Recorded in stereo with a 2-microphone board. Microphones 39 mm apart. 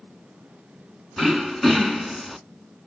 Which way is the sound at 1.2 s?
5° left (ahead or behind).